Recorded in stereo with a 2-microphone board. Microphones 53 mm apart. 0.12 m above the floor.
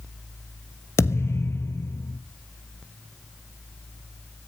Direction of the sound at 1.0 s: 55° left (ahead or behind).